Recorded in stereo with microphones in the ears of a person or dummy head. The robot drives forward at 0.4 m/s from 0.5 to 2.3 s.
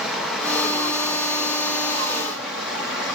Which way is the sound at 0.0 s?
Centre (ahead or behind).